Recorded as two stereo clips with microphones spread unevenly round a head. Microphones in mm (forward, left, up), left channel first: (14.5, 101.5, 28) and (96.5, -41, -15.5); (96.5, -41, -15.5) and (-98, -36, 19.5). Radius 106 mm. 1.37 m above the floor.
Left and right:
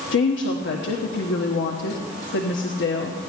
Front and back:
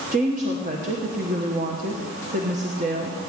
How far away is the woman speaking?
About 1.2 m.